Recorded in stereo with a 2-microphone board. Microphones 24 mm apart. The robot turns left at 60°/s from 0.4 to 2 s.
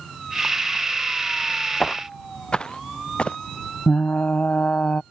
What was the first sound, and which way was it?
Footsteps, 30° left (ahead or behind).